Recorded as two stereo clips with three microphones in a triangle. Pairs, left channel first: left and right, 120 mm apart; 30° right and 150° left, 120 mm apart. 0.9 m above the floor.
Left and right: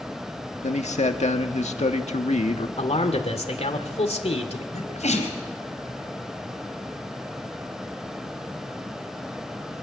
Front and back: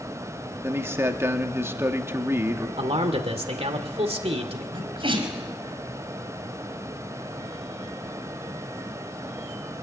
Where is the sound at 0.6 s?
85° left, 1.7 m.